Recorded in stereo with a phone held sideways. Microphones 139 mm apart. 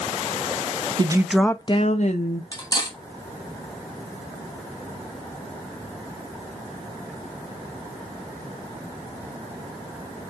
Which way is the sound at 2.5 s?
30° left (ahead or behind).